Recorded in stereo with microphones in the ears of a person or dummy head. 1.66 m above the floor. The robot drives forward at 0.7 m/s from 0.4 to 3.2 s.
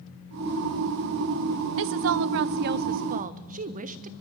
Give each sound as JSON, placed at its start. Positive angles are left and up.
{"t": 1.8, "sound": "a woman speaking", "side_deg": -65, "distance_m": 0.9}